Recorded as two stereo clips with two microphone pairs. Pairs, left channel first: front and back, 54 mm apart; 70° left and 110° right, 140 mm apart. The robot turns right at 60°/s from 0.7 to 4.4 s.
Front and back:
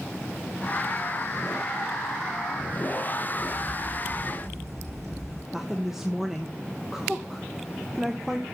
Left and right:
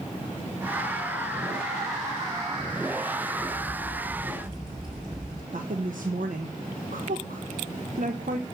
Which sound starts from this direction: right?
A woman speaking, at 5.5 s.